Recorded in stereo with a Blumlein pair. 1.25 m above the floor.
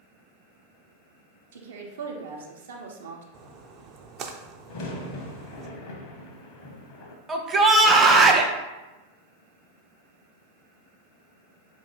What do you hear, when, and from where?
1.5 s a woman speaking: 60° right, 0.8 m
3.3 s a splash: 30° right, 0.5 m
4.7 s a crack: 45° left, 0.7 m
7.3 s a shout: 15° right, 0.7 m